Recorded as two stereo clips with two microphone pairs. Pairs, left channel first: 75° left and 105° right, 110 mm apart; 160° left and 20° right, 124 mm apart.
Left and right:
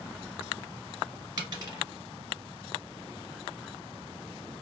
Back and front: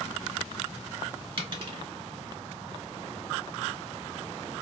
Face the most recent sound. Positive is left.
turn(degrees=-60)